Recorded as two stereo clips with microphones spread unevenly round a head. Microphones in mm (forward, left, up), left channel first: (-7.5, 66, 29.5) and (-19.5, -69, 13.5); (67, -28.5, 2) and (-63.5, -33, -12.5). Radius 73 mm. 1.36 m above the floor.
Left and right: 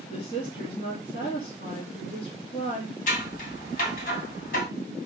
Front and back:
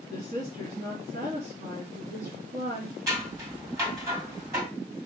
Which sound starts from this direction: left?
Scissors, at 3.1 s.